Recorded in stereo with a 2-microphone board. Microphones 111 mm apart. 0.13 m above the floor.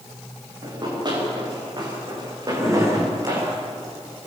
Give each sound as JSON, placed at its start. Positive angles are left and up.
{"t": 0.6, "sound": "running footsteps", "side_deg": -40, "distance_m": 9.5}
{"t": 2.5, "sound": "a drawer", "side_deg": -25, "distance_m": 4.5}